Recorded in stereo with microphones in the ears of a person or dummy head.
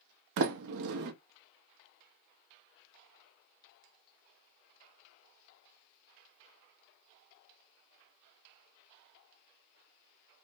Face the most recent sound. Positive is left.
turn(degrees=-65)  # may be behind; listen again after turning